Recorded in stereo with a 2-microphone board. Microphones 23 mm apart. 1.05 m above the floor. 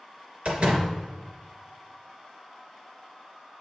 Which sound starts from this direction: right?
A door slam, at 0.5 s.